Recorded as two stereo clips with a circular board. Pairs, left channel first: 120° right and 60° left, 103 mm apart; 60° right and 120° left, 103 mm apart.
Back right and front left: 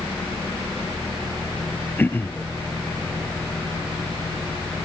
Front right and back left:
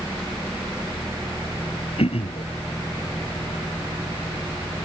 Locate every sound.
2.0 s throat clearing: 50° right